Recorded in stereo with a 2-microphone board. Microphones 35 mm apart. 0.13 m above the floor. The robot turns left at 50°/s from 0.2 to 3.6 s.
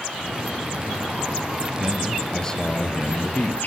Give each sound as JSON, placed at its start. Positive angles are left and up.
{"t": 1.8, "sound": "a man speaking", "azimuth_deg": -170, "distance_m": 3.0}